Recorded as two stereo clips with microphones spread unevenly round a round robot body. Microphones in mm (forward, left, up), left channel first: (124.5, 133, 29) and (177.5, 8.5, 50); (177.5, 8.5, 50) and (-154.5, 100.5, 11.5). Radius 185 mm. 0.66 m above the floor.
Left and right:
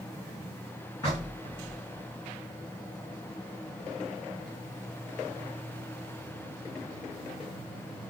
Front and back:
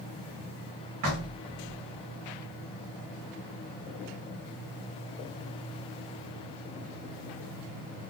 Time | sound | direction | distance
1.0 | knocking | 175° right | 1.8 m